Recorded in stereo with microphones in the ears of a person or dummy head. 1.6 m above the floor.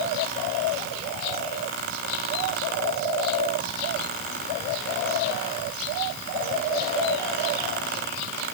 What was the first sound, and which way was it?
Only background noise.